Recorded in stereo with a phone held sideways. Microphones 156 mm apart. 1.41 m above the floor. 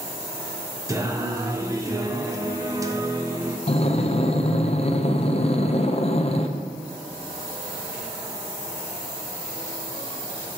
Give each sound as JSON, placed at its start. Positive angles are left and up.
{"t": 0.9, "sound": "singing", "side_deg": -20, "distance_m": 0.6}
{"t": 3.7, "sound": "breathing", "side_deg": 40, "distance_m": 0.5}